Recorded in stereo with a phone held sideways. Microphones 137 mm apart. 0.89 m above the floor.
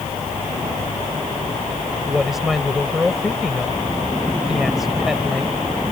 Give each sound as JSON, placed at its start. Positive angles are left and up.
{"t": 2.1, "sound": "a woman speaking", "side_deg": 0}